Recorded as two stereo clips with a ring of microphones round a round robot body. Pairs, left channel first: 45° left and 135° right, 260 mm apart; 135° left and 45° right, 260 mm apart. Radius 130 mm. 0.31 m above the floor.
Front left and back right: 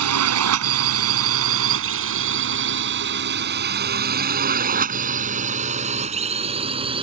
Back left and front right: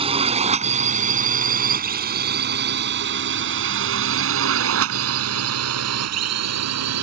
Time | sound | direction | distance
0.0 | a drone | 115° right | ?